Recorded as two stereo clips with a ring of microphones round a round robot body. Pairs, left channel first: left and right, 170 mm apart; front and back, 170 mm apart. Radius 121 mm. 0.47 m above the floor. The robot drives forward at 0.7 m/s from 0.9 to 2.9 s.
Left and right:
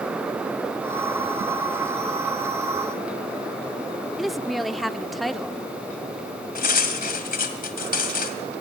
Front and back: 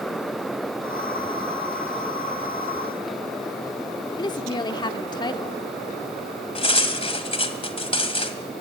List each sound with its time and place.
4.2 s a woman speaking: straight ahead, 0.7 m
6.5 s cutlery clinking: 55° left, 1.8 m